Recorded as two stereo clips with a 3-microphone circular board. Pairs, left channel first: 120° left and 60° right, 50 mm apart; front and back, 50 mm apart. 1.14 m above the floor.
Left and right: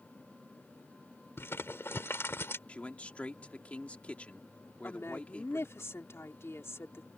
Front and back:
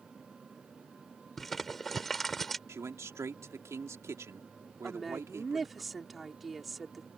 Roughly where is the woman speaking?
Left.